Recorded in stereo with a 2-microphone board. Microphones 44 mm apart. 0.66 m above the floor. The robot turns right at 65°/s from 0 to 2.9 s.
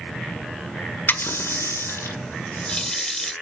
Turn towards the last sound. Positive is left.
turn(degrees=10)  # may be behind; listen again after turning